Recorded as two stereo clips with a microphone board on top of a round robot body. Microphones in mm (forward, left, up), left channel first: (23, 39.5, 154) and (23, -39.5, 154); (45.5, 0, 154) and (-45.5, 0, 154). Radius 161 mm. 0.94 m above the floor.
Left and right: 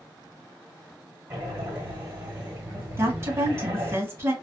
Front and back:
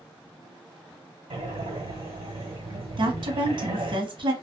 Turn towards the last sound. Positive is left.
turn(degrees=-150)